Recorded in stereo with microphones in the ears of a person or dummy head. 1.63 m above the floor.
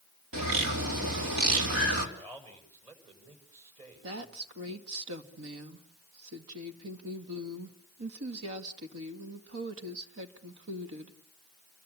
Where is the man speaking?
30° right (ahead or behind), 7 m.